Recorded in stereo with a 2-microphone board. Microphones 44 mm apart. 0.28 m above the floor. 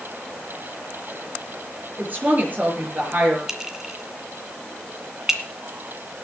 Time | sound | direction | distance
2.0 | a woman speaking | 40° right (ahead or behind) | 5.5 m
3.5 | a clink | 10° right (ahead or behind) | 1.9 m